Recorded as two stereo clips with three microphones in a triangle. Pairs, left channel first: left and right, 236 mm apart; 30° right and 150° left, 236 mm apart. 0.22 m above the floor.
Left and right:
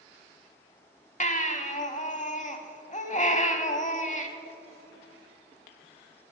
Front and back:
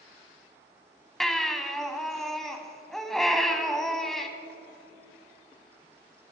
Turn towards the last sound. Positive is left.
turn(degrees=55)